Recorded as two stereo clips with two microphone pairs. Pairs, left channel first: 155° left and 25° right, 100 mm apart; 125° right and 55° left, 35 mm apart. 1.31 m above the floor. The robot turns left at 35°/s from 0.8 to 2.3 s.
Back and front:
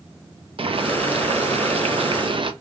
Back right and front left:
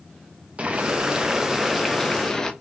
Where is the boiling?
5° right, 0.5 m; by 2.5 s 55° right, 0.5 m.